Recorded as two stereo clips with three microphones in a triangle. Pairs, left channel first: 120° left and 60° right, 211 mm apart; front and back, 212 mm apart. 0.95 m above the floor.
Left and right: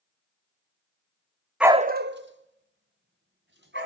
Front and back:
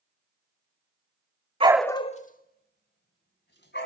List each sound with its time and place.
1.6 s a dog barking: 145° right, 0.5 m; by 3.9 s 30° right, 3 m